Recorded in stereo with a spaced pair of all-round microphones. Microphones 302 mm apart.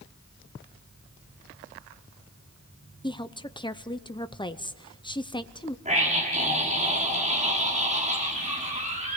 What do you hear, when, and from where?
3.0 s a woman speaking: 15° left (ahead or behind), 0.7 m
5.8 s a scream: 25° right (ahead or behind), 5.5 m